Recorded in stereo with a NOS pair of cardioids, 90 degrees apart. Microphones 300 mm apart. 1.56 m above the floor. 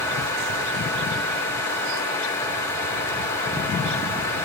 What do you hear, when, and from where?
0.0 s a fan: 65° left, 3.5 m